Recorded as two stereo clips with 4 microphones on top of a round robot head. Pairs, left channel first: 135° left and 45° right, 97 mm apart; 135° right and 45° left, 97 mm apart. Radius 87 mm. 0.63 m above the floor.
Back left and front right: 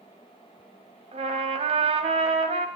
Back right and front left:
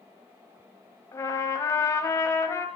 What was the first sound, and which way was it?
A trumpet, 75° right.